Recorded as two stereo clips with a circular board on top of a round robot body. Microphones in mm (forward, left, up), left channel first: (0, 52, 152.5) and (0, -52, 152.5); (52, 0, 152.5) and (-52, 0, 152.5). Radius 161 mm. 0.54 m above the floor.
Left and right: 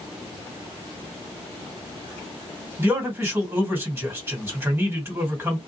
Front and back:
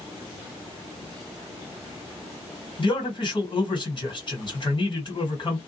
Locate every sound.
2.8 s a man speaking: 25° right, 2 m